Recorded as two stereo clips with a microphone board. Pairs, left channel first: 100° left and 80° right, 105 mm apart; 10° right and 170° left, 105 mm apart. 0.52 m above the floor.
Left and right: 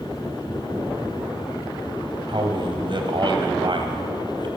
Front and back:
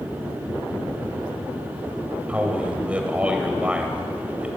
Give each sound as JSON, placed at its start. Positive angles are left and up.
{"t": 2.3, "sound": "a man speaking", "azimuth_deg": -115, "distance_m": 3.5}